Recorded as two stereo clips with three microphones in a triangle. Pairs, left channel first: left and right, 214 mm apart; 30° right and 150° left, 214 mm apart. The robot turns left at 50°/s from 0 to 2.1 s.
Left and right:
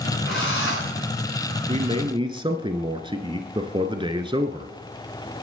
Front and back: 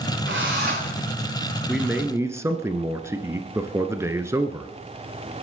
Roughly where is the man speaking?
Behind right.